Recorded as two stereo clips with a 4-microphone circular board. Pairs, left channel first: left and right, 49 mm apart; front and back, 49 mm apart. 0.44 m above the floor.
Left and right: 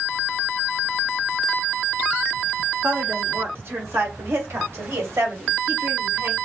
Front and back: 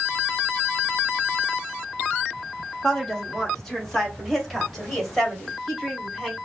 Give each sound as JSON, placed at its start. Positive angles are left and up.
{"t": 2.8, "sound": "a woman speaking", "azimuth_deg": -75, "distance_m": 1.1}